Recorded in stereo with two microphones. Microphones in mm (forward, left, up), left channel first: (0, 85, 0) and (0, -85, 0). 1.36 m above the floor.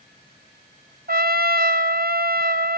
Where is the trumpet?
60° right (ahead or behind), 0.8 m.